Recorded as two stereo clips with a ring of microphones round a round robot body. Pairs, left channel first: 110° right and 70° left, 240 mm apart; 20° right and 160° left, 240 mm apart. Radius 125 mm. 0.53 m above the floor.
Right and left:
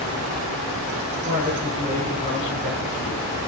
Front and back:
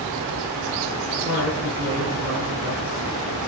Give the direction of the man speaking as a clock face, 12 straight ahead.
8 o'clock.